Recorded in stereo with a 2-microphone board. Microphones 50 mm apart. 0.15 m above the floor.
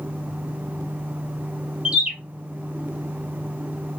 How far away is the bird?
About 1.2 m.